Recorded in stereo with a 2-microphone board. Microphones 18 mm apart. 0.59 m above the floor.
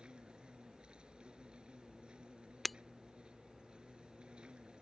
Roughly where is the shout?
I don't hear a shout.